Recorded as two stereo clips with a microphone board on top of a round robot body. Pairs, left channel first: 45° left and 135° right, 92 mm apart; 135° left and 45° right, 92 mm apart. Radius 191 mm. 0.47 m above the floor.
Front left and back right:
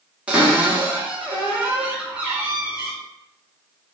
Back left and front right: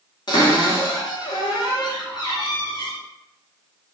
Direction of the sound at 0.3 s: 150° left.